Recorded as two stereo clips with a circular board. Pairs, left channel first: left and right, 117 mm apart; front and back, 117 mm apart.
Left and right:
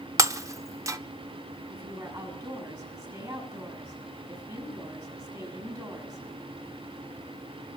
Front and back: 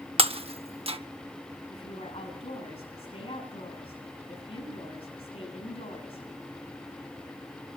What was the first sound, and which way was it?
Breaking glass, 150° right.